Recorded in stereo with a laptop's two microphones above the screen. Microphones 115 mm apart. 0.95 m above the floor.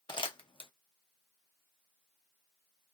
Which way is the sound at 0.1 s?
45° left (ahead or behind).